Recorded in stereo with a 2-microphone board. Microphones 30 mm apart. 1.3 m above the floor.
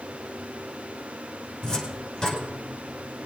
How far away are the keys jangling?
No keys jangling in this recording.